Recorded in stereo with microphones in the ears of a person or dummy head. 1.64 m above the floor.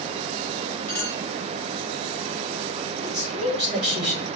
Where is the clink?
15° left (ahead or behind), 1.0 m.